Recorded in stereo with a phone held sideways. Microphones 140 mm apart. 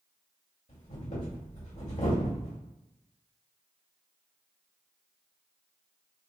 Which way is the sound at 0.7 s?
60° left (ahead or behind).